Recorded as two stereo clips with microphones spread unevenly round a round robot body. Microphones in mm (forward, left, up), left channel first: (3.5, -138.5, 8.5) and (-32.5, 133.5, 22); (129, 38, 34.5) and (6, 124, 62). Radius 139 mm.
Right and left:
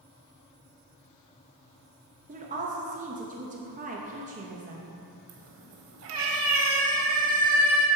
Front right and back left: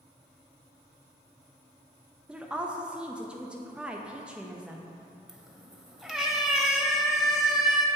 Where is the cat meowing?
65° left, 1.1 m.